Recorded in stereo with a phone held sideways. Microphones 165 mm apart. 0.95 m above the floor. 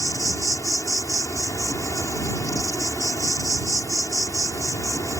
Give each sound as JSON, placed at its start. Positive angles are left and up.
{"t": 0.0, "sound": "an insect", "side_deg": 20}